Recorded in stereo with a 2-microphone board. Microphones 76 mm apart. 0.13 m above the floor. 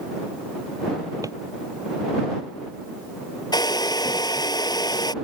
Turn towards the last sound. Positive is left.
turn(degrees=65)  # may be behind; listen again after turning